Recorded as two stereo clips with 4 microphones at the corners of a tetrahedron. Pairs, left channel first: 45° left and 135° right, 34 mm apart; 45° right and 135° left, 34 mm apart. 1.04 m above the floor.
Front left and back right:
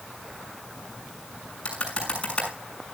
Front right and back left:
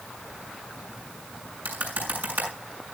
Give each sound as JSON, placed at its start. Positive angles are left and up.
{"t": 1.6, "sound": "typing on a keyboard", "azimuth_deg": 105, "distance_m": 6.5}